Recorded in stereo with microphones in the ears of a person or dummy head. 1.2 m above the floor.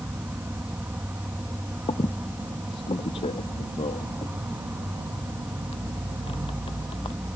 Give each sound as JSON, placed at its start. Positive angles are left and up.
{"t": 0.0, "sound": "an insect", "side_deg": -10}
{"t": 1.9, "sound": "a squeak", "side_deg": 25}